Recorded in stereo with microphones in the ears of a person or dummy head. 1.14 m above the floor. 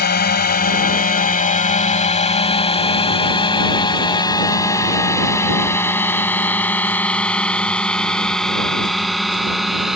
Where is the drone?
45° left (ahead or behind); by 10.0 s 5° right (ahead or behind).